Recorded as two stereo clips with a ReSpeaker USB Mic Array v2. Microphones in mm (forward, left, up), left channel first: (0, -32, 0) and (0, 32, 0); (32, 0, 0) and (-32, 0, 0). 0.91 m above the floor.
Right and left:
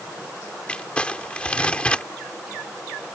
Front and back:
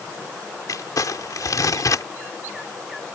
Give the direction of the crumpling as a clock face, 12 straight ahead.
1 o'clock.